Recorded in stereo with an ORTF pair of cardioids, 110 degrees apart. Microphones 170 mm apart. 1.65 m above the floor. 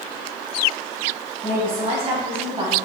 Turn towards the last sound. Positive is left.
turn(degrees=-35)